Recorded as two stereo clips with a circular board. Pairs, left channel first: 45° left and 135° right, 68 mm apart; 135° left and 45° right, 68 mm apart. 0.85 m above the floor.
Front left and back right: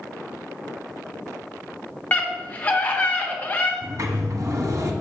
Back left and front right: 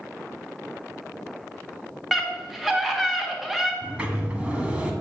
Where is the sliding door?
110° right, 1.1 m.